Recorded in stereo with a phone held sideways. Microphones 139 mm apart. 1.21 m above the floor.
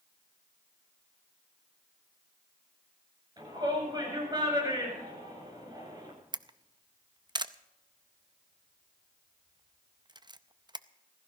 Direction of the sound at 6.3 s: 30° right (ahead or behind).